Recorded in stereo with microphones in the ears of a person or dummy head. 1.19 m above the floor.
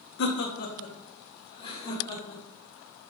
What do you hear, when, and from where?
0.2 s laughter: 65° left (ahead or behind), 1.7 m; by 2.4 s 20° left (ahead or behind), 3.5 m